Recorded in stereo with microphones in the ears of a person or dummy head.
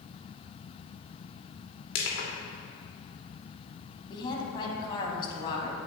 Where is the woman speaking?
30° left (ahead or behind), 1.9 m.